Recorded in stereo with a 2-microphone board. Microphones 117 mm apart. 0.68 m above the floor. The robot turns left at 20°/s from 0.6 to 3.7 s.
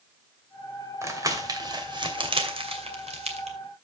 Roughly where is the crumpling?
Right.